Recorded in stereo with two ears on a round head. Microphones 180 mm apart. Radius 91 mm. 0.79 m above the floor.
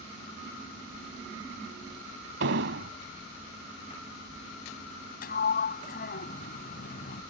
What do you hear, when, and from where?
2.4 s an explosion: 60° right (ahead or behind)
5.2 s a sliding door: 50° left (ahead or behind)